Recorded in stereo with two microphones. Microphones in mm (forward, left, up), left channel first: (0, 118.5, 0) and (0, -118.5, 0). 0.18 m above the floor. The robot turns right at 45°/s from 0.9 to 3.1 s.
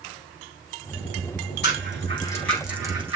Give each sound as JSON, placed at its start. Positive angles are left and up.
{"t": 1.6, "sound": "a rattle", "side_deg": 45, "distance_m": 4.0}